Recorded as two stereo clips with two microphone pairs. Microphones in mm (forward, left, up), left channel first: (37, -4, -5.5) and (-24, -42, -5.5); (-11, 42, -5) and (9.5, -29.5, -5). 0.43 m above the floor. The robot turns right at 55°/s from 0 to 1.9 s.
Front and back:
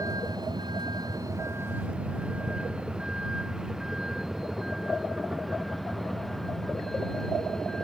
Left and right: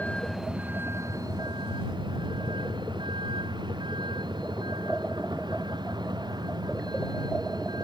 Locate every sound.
0.0 s a vehicle: 175° left; by 7.8 s 50° right